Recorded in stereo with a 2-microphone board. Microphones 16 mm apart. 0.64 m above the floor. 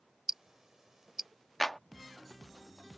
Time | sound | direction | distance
0.3 | ticking | 35° right (ahead or behind) | ?
1.6 | a clap | 15° left (ahead or behind) | ?